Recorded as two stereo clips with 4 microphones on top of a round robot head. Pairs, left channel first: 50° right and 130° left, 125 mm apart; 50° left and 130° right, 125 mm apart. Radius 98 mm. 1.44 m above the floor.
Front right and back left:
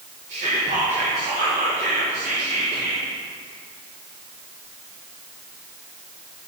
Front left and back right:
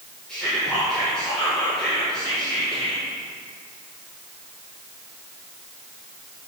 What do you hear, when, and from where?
0.3 s whispering: 130° left, 1.9 m